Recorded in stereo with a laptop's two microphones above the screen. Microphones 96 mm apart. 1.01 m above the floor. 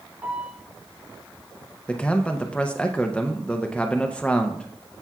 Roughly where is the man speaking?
Centre.